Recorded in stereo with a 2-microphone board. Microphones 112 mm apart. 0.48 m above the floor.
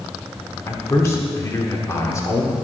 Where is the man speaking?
25° left (ahead or behind), 1.7 m.